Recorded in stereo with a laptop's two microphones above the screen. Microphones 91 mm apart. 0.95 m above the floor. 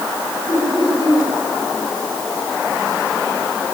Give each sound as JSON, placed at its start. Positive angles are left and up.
{"t": 0.5, "sound": "laughter", "side_deg": 55, "distance_m": 3.5}